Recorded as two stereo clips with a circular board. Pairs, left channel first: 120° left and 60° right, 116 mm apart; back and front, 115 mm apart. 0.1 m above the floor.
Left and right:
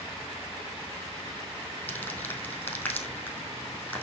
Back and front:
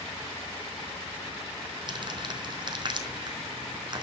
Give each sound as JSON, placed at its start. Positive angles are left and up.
{"t": 1.9, "sound": "crumpling", "azimuth_deg": 45, "distance_m": 3.0}